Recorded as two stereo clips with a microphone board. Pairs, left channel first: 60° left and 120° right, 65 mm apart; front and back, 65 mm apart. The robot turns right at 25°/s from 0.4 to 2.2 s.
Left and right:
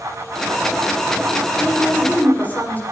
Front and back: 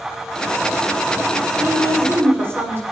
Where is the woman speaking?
110° left, 6.5 m; by 2.8 s 125° left, 6.5 m.